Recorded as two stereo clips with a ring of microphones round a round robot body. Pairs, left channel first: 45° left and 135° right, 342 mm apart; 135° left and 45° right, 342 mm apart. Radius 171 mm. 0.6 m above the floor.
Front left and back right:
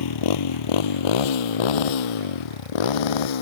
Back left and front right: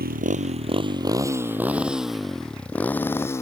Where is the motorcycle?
20° left; by 3.4 s 55° left.